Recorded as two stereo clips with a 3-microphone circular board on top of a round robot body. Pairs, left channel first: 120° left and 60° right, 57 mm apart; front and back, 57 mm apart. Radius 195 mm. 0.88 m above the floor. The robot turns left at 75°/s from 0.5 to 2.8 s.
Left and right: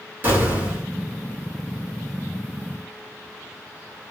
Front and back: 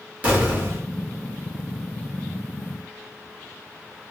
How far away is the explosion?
About 1.8 m.